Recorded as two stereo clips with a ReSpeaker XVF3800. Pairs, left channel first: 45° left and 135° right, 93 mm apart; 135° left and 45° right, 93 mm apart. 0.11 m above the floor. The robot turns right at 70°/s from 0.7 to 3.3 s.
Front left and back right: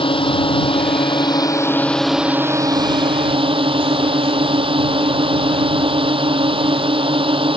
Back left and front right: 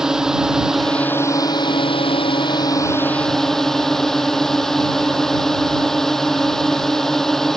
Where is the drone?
40° left; by 7.6 s 140° right.